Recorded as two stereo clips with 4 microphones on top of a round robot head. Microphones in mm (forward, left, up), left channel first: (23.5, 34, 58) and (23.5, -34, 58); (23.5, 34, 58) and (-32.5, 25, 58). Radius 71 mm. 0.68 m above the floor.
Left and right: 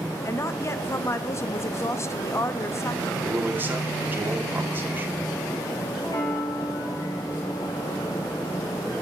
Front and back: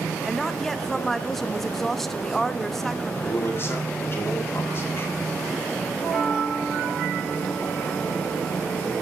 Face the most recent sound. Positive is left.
turn(degrees=105)